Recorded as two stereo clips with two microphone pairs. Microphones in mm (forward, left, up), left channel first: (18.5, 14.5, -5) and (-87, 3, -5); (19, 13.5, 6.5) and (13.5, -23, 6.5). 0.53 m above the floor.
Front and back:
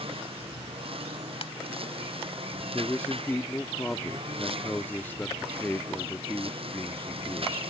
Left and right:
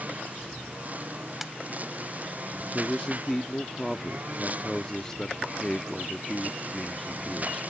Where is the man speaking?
45° left.